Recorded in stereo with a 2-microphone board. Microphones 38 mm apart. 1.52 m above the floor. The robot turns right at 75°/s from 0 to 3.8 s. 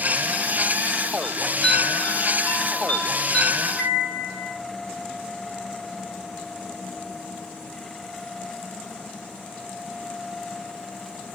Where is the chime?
5° right, 4.5 m; by 4.6 s 170° right, 4.5 m.